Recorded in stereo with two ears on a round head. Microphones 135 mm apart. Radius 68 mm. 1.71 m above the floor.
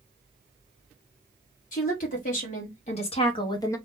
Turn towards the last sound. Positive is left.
turn(degrees=20)  # may be behind; listen again after turning